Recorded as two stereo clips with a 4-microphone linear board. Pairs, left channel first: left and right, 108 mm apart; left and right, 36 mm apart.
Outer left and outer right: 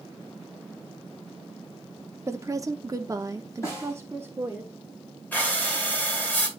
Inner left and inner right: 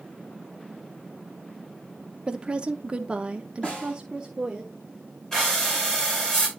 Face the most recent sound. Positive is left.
turn(degrees=15)  # may be behind; listen again after turning